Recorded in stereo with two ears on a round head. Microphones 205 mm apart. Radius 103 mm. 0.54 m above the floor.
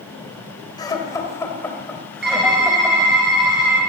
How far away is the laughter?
About 3 m.